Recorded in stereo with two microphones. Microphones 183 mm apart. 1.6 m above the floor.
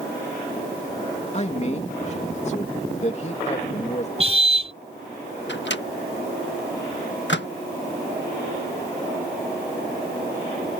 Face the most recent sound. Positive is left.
turn(degrees=85)